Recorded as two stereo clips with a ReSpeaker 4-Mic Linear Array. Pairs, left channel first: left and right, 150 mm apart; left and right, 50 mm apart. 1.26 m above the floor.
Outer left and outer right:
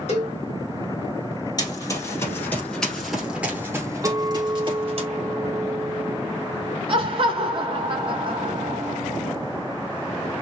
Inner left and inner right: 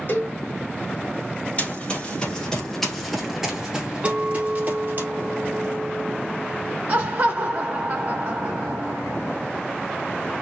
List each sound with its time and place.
0.1 s a cowbell: 50° left (ahead or behind), 1.3 m
1.6 s running footsteps: 30° left (ahead or behind), 2.0 m; by 5.0 s 45° right (ahead or behind), 1.8 m
4.0 s a clink: 30° right (ahead or behind), 0.8 m
6.9 s laughter: 40° right (ahead or behind), 0.7 m